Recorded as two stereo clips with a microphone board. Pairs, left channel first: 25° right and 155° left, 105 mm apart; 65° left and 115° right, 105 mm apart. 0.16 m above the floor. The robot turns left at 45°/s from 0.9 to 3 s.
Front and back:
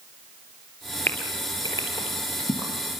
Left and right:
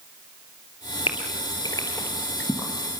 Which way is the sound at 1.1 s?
50° left.